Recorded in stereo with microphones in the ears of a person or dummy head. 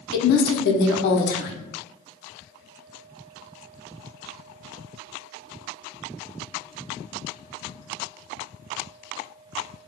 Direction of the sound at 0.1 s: 65° left (ahead or behind).